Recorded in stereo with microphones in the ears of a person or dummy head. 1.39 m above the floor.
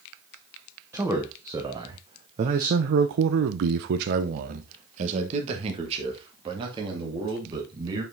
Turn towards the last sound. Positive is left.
turn(degrees=-25)  # may be behind; listen again after turning